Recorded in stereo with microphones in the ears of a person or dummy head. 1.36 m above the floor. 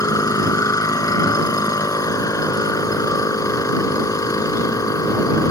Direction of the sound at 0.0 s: 20° left (ahead or behind).